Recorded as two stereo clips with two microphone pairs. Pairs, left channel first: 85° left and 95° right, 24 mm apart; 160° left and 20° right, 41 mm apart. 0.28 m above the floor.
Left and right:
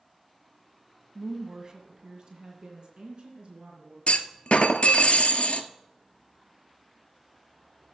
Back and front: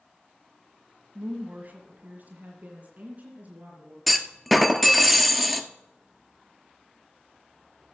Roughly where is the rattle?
I don't hear a rattle.